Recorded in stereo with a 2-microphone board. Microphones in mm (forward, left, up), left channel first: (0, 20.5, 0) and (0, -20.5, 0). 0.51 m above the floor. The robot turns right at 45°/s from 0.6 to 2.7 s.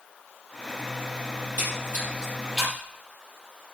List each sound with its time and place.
1.4 s a splash: 65° right (ahead or behind), 5.5 m; by 2.8 s 5° right (ahead or behind), 5.5 m